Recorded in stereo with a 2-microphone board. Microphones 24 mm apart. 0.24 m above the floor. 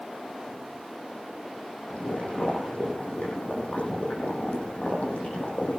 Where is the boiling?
80° left, 9.5 m.